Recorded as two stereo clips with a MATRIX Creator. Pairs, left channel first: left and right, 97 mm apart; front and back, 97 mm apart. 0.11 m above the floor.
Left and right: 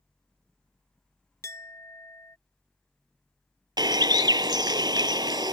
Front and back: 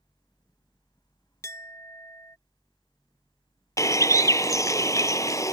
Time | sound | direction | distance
1.4 | a clink | 45° left | ?
3.8 | a bird | 50° right | ?